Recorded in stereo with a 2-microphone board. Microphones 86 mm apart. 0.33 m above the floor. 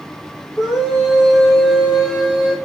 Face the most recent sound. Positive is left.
turn(degrees=5)  # may be behind; listen again after turning